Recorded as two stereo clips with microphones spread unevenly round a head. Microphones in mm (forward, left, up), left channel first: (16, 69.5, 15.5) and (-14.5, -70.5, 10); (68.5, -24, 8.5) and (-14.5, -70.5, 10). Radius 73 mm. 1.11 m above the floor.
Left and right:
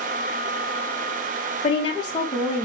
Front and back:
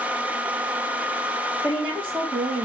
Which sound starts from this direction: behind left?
A woman speaking, at 1.6 s.